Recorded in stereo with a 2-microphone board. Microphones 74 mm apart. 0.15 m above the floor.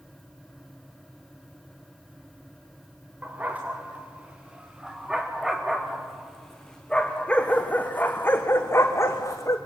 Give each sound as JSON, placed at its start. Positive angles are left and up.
{"t": 3.2, "sound": "a dog barking", "side_deg": -20, "distance_m": 4.0}